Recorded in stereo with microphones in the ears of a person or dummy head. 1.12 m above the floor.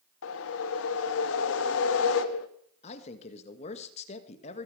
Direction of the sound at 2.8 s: 40° left (ahead or behind).